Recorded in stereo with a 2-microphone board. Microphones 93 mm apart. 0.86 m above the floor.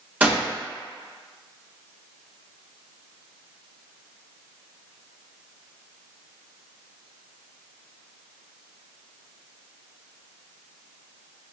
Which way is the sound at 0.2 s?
15° right (ahead or behind).